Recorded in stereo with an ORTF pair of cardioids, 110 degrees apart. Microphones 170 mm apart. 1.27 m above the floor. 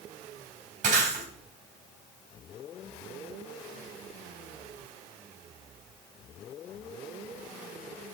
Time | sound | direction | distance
0.8 | breaking glass | 50° right | 4.5 m